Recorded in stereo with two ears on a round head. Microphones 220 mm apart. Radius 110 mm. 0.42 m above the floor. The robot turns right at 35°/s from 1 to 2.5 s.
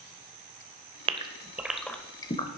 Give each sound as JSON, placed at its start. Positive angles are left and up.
{"t": 1.1, "sound": "a gasp", "side_deg": -20, "distance_m": 0.9}